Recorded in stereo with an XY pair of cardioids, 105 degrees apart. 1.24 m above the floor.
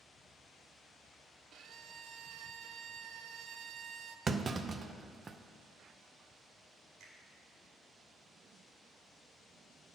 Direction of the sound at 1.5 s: 65° right.